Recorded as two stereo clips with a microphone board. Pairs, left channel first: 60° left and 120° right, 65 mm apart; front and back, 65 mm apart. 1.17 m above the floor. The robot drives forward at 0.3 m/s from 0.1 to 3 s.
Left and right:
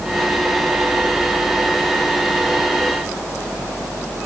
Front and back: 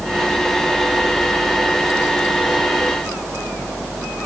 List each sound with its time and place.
Only background noise.